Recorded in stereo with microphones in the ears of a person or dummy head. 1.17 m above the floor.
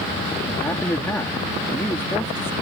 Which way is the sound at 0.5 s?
15° left (ahead or behind).